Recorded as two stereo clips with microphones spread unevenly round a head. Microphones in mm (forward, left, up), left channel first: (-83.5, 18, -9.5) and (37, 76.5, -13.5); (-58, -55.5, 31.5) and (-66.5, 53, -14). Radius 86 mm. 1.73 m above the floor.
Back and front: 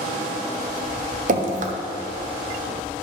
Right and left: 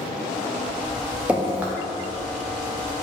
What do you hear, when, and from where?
1.3 s dripping: straight ahead, 0.7 m